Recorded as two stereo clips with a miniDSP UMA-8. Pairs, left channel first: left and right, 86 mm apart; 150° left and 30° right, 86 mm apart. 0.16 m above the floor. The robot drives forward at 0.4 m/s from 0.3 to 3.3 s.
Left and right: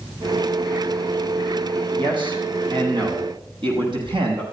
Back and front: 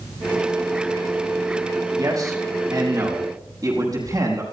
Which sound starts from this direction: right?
A man speaking, at 2.0 s.